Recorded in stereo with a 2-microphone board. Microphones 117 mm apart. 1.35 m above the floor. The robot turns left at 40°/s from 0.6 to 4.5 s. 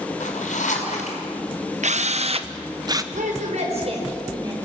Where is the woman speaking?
95° right, 6 m; by 4.7 s 150° right, 6 m.